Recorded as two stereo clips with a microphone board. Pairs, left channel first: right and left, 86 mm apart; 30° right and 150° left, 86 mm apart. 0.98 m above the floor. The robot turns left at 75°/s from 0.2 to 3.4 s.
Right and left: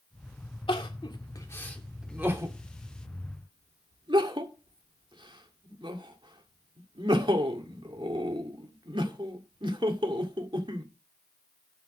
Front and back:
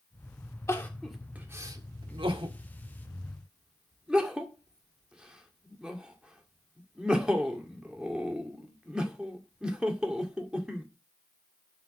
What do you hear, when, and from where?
0.7 s crying: 85° right, 1.9 m; by 10.8 s 70° left, 1.9 m